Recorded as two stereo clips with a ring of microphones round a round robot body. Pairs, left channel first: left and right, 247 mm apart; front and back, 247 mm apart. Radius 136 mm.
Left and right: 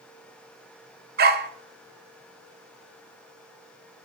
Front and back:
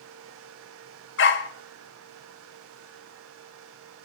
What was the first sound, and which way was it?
A dog barking, 40° right.